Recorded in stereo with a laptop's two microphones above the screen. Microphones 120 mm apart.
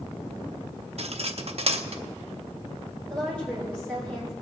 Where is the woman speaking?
10° left (ahead or behind), 4.5 m.